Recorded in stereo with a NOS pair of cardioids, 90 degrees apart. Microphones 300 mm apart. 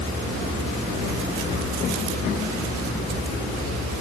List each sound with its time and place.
Only background noise.